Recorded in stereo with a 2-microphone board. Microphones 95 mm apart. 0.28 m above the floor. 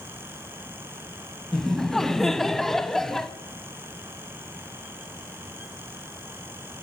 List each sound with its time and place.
1.5 s laughter: 5° left (ahead or behind), 1.5 m